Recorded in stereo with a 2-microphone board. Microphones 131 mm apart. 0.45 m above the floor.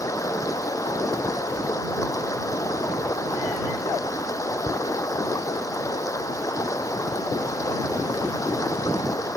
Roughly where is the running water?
Left.